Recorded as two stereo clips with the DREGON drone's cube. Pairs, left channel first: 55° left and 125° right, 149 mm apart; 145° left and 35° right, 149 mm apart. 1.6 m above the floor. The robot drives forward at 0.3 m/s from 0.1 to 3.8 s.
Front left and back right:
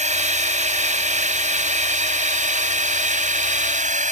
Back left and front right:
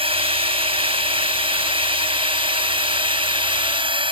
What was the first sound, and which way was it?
A drone, 85° right.